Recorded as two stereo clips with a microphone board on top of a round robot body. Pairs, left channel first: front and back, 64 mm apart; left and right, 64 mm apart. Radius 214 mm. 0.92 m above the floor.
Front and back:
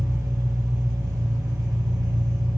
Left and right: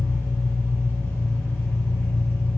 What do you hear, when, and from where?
0.0 s an engine running: 145° left, 0.8 m